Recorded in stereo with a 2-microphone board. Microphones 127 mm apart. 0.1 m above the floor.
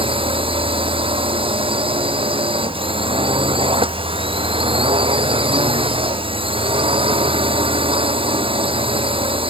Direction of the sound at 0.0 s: 45° right (ahead or behind).